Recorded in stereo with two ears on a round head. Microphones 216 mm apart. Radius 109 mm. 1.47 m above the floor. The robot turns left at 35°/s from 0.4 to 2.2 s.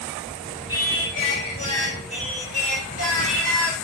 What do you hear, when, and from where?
0.7 s singing: 75° left, 2.5 m; by 3.7 s 20° left, 2.5 m